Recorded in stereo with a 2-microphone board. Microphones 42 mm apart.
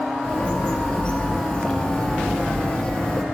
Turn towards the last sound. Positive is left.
turn(degrees=20)  # may be behind; listen again after turning